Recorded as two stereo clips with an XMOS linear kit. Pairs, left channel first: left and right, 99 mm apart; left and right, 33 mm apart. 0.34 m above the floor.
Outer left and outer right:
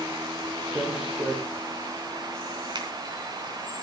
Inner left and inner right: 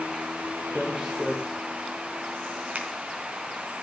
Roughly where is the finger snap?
Right.